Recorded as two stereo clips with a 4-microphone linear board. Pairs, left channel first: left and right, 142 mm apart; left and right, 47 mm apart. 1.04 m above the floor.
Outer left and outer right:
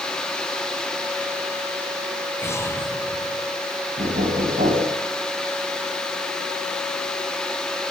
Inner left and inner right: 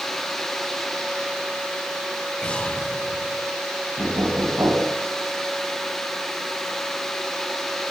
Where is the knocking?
85° right, 5.5 m.